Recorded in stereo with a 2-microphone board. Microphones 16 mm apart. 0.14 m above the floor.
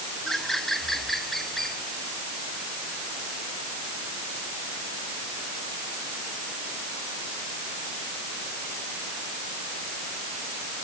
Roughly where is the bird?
Left.